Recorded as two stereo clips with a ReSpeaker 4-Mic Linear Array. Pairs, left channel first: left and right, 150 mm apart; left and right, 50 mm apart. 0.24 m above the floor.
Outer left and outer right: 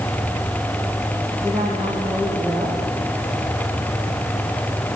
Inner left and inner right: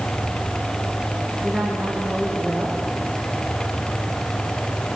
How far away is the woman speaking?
About 9.5 m.